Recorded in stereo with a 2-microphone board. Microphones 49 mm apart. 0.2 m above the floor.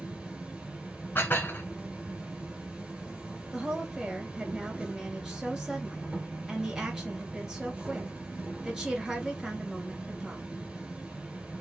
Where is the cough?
I don't hear a cough.